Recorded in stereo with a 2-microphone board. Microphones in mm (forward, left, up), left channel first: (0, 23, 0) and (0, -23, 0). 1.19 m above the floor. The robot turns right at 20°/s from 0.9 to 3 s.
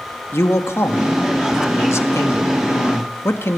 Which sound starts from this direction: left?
A man speaking, at 0.3 s.